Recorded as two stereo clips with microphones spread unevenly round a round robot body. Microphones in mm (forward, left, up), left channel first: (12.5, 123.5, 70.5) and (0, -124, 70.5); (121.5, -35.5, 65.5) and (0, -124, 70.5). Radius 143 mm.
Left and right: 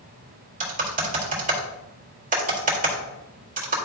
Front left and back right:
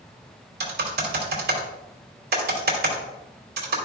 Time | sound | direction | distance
0.6 | typing on a keyboard | 150° right | 2.5 m